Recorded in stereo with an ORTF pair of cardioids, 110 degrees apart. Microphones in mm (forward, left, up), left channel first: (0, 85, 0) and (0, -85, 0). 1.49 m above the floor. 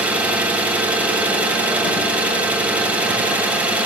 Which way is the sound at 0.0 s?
10° right.